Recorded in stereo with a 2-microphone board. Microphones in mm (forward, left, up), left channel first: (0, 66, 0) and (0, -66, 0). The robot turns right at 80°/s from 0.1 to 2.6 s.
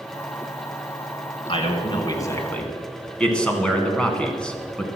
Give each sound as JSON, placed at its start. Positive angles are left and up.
{"t": 1.5, "sound": "a man speaking", "azimuth_deg": 80, "distance_m": 2.0}